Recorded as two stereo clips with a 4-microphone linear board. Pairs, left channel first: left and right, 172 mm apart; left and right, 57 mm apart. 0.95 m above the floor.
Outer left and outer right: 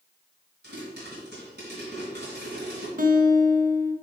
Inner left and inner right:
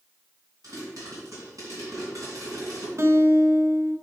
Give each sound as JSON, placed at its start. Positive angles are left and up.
{"t": 0.6, "sound": "a pop", "side_deg": -80, "distance_m": 3.0}
{"t": 3.0, "sound": "a guitar", "side_deg": -55, "distance_m": 0.7}